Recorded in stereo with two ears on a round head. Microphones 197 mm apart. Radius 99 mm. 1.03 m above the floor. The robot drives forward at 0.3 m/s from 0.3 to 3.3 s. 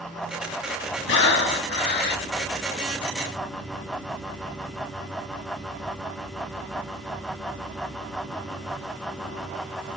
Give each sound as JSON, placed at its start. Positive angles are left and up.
{"t": 1.1, "sound": "breathing", "side_deg": 55, "distance_m": 1.7}